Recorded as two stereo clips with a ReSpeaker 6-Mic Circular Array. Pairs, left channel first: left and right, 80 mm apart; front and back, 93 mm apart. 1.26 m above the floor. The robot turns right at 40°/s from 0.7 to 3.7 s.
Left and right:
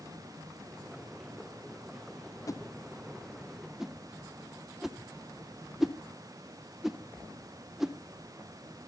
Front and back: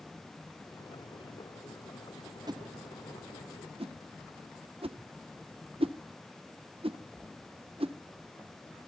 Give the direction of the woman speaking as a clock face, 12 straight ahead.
I don't hear a woman speaking.